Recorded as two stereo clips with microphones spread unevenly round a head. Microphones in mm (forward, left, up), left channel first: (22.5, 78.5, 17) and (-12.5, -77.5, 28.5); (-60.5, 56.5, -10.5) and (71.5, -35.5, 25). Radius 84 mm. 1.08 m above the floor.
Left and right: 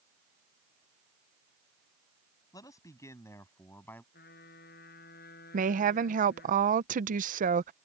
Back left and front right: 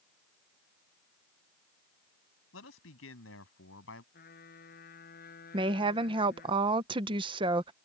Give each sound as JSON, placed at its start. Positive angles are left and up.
{"t": 2.5, "sound": "a man speaking", "azimuth_deg": 150}
{"t": 4.1, "sound": "a trumpet", "azimuth_deg": 110}
{"t": 5.5, "sound": "a woman speaking", "azimuth_deg": -100}